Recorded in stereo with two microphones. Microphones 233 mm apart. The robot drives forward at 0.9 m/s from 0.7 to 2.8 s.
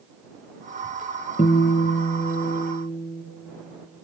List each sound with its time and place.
1.4 s a guitar: 35° left (ahead or behind), 1.6 m